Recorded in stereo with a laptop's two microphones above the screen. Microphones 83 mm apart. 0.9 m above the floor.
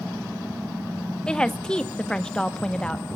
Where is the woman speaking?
10° left (ahead or behind), 0.8 m.